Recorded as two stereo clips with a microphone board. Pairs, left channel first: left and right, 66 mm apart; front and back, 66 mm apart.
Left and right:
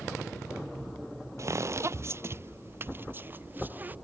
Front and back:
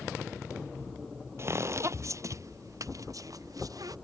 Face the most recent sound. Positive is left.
turn(degrees=-155)